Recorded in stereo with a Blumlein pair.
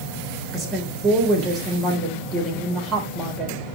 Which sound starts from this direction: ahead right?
A woman speaking, at 0.5 s.